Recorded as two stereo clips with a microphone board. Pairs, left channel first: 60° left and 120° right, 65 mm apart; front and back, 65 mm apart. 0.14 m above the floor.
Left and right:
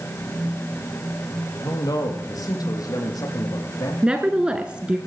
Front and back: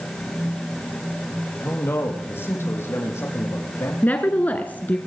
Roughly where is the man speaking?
Ahead left.